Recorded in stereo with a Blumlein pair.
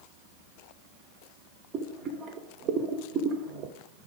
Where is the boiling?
35° right, 0.6 m.